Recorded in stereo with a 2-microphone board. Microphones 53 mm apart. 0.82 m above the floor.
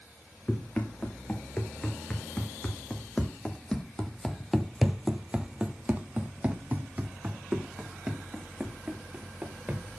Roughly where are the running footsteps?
Left.